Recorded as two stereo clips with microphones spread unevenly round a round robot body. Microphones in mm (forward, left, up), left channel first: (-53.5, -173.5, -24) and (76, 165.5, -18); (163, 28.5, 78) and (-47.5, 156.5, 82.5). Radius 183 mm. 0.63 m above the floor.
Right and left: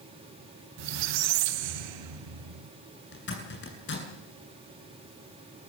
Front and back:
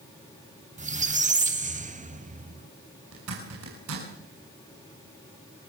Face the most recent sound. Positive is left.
turn(degrees=-170)